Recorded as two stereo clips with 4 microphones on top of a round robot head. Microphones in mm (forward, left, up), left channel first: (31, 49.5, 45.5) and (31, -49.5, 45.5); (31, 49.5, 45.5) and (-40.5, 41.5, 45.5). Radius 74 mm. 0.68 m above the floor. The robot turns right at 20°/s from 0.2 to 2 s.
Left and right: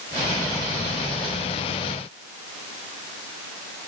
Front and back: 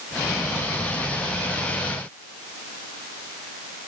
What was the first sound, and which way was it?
Only background noise.